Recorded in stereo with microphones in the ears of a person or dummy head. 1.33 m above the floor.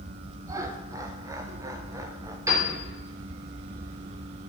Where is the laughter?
20° right (ahead or behind), 0.7 m.